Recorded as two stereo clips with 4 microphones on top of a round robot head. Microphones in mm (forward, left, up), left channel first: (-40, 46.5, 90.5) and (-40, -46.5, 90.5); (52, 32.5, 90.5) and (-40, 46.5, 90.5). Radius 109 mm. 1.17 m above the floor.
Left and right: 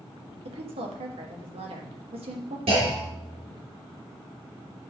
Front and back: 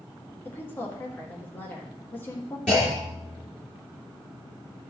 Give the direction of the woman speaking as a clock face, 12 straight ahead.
3 o'clock.